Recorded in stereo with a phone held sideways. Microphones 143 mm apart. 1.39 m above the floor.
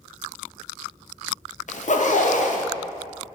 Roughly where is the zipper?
Left.